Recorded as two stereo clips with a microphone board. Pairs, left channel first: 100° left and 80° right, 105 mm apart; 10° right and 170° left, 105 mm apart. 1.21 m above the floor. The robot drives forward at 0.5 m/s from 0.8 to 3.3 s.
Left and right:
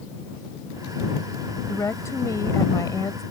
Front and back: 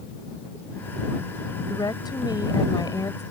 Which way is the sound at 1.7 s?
40° left.